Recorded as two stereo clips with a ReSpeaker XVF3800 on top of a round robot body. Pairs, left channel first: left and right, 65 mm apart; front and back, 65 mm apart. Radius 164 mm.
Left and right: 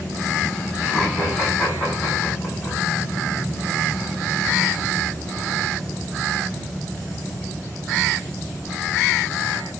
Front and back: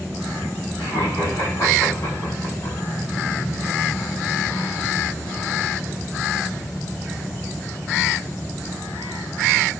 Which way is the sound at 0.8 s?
Straight ahead.